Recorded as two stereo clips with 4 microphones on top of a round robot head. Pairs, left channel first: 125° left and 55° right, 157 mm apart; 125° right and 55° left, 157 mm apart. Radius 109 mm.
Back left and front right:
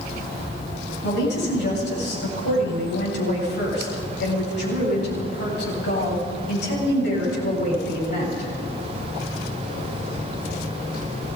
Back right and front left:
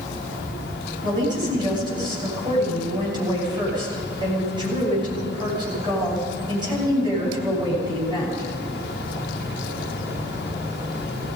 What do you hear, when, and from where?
1.0 s a woman speaking: 120° left, 8.5 m